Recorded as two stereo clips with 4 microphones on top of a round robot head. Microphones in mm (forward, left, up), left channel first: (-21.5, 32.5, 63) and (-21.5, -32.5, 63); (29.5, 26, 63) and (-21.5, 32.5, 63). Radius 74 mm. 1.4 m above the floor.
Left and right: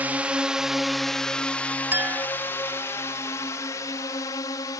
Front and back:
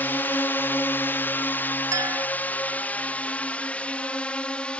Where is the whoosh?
No whoosh in this recording.